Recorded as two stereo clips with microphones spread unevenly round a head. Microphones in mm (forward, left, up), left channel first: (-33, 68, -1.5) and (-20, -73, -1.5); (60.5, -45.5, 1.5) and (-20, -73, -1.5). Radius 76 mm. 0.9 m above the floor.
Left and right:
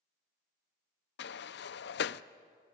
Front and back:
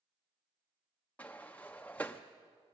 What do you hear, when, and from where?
1.2 s a sliding door: 100° left, 0.5 m